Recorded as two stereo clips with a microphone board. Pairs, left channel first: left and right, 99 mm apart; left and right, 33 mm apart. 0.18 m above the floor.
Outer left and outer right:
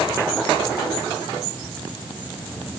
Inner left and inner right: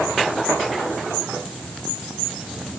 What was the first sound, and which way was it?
Only background noise.